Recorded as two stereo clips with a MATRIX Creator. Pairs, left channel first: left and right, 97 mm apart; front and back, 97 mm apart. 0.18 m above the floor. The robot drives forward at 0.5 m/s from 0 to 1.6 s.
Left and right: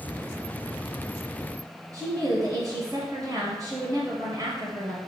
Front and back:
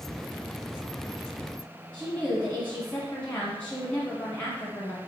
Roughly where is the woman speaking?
Ahead right.